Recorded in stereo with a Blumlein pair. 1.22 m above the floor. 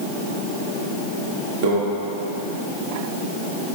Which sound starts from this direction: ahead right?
A microwave, at 1.6 s.